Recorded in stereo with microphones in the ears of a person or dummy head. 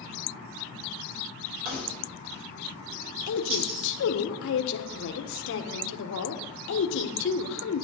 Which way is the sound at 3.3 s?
70° left (ahead or behind).